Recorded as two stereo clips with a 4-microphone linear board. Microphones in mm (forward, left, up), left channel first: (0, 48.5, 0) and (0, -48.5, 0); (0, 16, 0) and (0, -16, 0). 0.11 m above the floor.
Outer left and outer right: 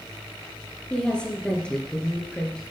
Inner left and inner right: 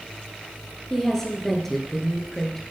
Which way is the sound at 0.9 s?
10° left (ahead or behind).